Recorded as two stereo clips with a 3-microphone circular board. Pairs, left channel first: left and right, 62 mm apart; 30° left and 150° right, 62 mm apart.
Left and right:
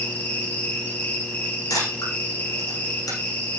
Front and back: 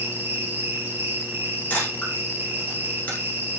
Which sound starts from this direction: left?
A camera shutter, at 1.7 s.